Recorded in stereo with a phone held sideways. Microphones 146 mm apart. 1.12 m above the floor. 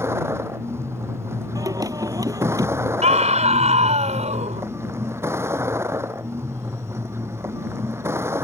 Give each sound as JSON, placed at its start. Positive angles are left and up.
{"t": 0.0, "sound": "a vehicle", "side_deg": -20}
{"t": 1.6, "sound": "singing", "side_deg": -25}
{"t": 3.0, "sound": "a scream", "side_deg": -55}